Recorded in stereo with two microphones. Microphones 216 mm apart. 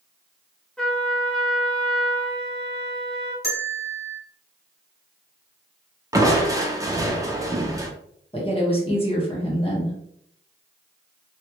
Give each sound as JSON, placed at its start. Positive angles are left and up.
{"t": 0.8, "sound": "a trumpet", "side_deg": 5, "distance_m": 1.1}
{"t": 3.4, "sound": "a bell", "side_deg": 45, "distance_m": 1.8}
{"t": 6.1, "sound": "crushing", "side_deg": -15, "distance_m": 0.7}
{"t": 8.3, "sound": "a woman speaking", "side_deg": 25, "distance_m": 1.4}